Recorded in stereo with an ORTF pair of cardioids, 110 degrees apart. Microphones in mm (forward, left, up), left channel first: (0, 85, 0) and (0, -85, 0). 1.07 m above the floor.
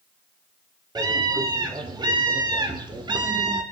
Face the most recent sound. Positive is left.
turn(degrees=-30)